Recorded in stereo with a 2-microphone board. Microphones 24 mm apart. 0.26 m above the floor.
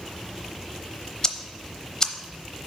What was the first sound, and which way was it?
Ticking, 25° left (ahead or behind).